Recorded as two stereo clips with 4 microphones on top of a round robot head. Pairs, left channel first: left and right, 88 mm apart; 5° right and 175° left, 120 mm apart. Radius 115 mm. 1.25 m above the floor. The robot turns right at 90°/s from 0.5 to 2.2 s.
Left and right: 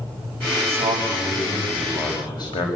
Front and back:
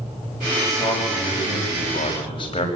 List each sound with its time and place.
0.6 s a man speaking: 100° right, 6.5 m; by 2.7 s 40° left, 6.5 m